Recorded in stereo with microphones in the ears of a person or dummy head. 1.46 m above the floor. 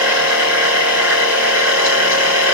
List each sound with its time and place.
0.0 s a machine running: 15° right (ahead or behind), 3 m